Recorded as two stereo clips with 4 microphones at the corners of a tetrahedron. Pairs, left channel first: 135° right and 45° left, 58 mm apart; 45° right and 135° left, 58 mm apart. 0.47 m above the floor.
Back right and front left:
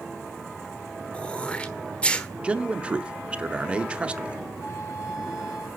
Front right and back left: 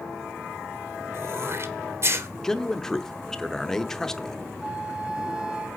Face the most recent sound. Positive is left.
turn(degrees=-150)